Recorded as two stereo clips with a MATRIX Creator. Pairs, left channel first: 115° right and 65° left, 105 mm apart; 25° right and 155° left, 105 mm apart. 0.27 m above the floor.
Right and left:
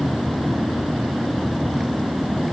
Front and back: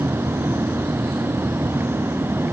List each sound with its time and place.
Only background noise.